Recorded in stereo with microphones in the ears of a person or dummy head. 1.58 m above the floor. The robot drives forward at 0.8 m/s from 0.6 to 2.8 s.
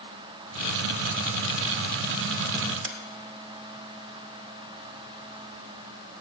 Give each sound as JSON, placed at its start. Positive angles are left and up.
{"t": 2.8, "sound": "a sliding door", "side_deg": -85, "distance_m": 1.2}